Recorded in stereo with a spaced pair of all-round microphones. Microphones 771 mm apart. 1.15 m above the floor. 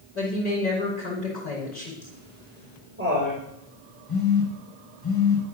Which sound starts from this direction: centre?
Laughter, at 2.0 s.